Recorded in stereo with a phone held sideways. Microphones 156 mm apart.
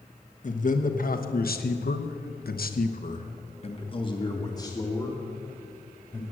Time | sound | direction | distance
0.4 | a man speaking | 50° left (ahead or behind) | 1.6 m